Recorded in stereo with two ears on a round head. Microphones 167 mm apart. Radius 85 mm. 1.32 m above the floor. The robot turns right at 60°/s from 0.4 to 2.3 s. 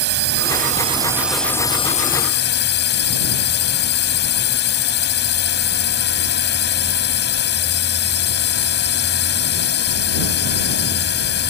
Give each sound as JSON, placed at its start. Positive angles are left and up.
{"t": 0.0, "sound": "a drone", "azimuth_deg": -55}